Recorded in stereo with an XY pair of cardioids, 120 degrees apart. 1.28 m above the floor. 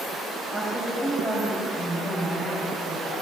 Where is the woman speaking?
30° right, 7.5 m; by 3.1 s 45° right, 8.5 m.